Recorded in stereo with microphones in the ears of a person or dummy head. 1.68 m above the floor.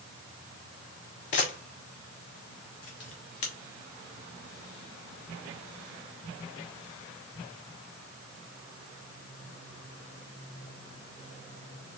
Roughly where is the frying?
No frying in this recording.